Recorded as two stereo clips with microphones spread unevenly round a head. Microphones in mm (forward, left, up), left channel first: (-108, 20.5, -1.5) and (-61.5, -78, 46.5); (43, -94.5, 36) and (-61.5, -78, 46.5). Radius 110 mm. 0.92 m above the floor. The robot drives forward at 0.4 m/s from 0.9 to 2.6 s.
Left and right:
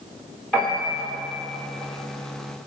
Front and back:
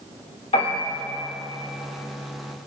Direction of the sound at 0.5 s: 30° left.